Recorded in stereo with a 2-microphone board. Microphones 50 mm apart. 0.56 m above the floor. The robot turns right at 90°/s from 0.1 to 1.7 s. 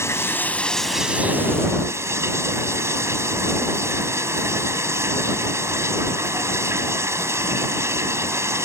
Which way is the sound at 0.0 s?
110° left.